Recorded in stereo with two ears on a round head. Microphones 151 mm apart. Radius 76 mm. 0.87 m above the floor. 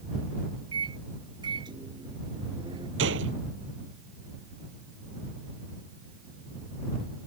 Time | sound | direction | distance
0.7 | a microwave | 25° right (ahead or behind) | ?
3.0 | a gunshot | 90° right | ?